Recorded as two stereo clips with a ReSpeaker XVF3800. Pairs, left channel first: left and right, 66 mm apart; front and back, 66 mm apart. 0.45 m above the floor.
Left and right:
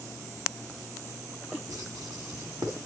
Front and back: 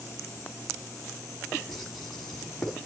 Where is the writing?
80° right, 3 m.